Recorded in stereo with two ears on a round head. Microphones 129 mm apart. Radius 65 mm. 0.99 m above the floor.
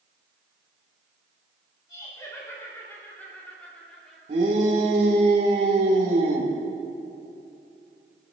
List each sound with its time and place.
1.9 s laughter: 25° left (ahead or behind), 3 m; by 4.2 s 5° left (ahead or behind), 3 m
4.3 s a shout: 50° right (ahead or behind), 3 m